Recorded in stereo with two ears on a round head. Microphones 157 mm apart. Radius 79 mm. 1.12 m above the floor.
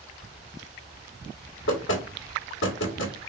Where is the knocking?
85° left, 1.6 m.